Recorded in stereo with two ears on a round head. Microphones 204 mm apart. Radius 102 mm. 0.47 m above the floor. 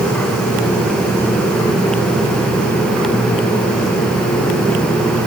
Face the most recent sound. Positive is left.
No sound to turn to.